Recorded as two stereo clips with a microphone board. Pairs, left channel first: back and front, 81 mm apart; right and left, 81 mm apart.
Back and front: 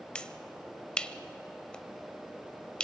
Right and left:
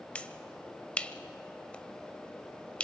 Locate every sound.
0.1 s a finger snap: 130° right, 0.7 m